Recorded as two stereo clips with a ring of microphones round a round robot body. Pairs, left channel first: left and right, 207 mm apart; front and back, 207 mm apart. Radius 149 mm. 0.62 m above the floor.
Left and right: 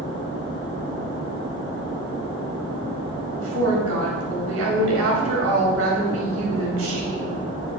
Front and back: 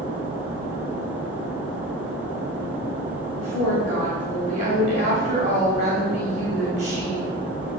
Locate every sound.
3.4 s a woman speaking: 115° right, 3 m